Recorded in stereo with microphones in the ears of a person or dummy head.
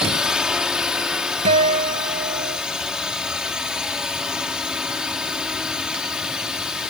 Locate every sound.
0.0 s a drone: 5° right (ahead or behind)
1.4 s a guitar: 40° right (ahead or behind)